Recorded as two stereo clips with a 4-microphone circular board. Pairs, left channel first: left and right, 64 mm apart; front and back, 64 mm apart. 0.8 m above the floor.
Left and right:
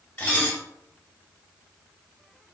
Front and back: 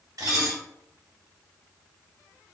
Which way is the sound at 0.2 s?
150° left.